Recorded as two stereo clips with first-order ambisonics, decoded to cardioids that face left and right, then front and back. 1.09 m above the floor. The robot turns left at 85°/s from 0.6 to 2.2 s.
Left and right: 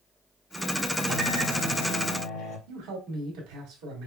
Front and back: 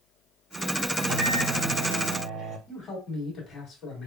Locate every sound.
1.0 s a microwave: 130° right, 2.5 m; by 2.6 s 125° left, 2.5 m
2.7 s a man speaking: 70° right, 2 m